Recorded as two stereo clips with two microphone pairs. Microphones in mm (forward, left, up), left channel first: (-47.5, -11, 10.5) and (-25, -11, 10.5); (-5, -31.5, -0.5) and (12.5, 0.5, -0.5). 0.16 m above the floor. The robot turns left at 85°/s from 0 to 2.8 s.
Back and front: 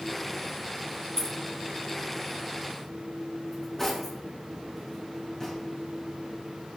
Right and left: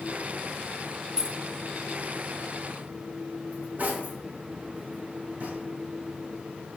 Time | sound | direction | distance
1.2 | keys jangling | 120° left | 0.9 m
3.5 | cutlery clinking | 100° left | 3.5 m